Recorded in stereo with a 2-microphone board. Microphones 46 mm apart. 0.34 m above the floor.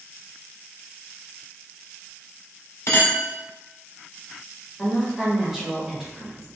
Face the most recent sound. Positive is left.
turn(degrees=-5)  # may be behind; listen again after turning